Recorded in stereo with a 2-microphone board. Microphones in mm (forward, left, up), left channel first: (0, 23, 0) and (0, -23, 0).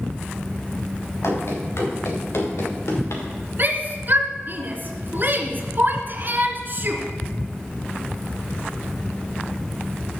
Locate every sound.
1.2 s running footsteps: 75° left (ahead or behind), 4.5 m; by 3.2 s 90° left, 4 m
3.6 s a shout: 45° right (ahead or behind), 1.5 m